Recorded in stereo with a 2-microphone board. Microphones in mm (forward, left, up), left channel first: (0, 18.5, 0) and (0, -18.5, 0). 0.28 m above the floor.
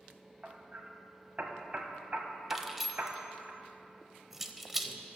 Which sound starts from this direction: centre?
Keys jangling, at 2.5 s.